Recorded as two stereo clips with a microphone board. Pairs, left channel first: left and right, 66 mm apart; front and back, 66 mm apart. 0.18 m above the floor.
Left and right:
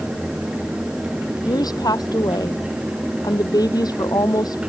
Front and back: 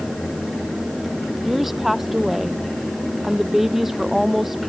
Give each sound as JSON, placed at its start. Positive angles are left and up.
{"t": 1.4, "sound": "a woman speaking", "azimuth_deg": 95}